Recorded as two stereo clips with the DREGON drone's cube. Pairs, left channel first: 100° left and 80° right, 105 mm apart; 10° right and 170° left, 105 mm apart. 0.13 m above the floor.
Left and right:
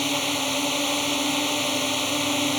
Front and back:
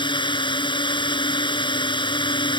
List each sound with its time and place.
0.0 s a drone: 10° left